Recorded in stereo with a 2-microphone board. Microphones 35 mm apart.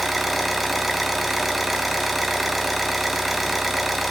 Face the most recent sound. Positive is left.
turn(degrees=0)  # may be behind; listen again after turning